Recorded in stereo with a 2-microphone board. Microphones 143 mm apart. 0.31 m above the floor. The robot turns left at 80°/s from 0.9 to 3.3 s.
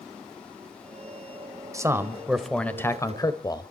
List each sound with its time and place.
1.7 s a man speaking: 25° right (ahead or behind), 1.2 m; by 3.7 s 25° left (ahead or behind), 1.2 m